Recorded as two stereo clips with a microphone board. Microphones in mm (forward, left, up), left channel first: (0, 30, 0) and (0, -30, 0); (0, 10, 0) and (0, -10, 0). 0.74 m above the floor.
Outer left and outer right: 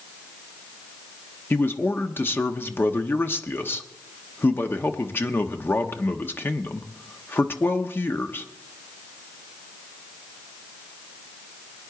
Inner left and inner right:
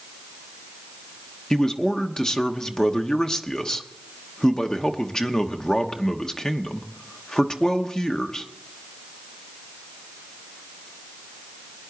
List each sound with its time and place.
1.5 s a man speaking: 35° left (ahead or behind), 1.0 m